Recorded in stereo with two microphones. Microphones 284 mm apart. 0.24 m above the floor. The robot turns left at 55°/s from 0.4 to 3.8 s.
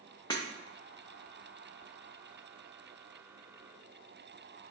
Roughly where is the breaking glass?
Centre.